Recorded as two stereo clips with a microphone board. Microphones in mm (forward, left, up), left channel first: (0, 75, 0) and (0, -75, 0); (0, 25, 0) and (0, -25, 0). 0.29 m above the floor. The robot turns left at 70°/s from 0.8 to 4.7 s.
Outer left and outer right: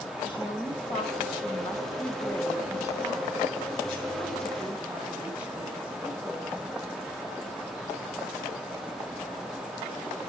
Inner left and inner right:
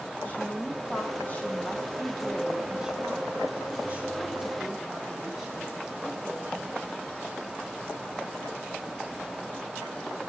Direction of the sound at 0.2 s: 110° left.